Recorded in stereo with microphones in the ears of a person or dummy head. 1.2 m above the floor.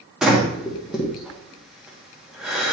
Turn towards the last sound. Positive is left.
turn(degrees=-10)  # may be behind; listen again after turning